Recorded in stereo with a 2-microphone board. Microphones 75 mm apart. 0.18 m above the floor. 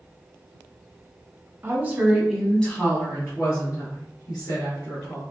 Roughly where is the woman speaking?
Right.